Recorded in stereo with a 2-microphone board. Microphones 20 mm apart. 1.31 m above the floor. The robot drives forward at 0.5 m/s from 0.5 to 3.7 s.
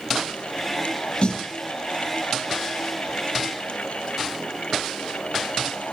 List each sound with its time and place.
1.2 s a snare drum: 45° left (ahead or behind), 2 m